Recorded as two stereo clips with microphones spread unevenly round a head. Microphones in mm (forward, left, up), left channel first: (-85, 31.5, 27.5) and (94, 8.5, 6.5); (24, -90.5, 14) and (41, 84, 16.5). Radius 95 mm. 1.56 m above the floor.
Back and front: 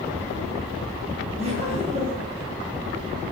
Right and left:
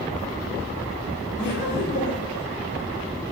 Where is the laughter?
70° right, 6 m.